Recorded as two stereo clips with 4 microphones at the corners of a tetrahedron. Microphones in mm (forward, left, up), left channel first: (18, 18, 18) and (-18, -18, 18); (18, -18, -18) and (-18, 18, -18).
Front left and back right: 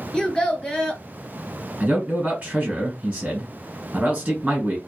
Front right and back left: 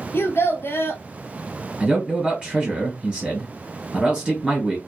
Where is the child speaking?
25° right, 1.1 m.